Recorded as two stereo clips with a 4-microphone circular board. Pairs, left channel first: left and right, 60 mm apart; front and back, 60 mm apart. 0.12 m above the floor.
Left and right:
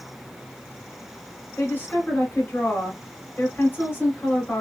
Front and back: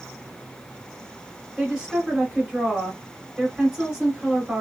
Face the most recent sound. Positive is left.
turn(degrees=110)